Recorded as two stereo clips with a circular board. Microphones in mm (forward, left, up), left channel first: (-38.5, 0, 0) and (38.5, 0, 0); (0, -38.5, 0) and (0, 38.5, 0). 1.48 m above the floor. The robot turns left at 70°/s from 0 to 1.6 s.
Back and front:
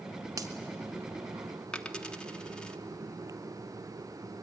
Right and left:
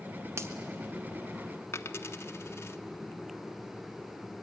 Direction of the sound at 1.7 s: 110° right.